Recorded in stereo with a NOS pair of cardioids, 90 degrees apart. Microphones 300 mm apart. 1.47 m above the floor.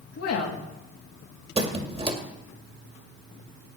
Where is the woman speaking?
55° left, 2 m.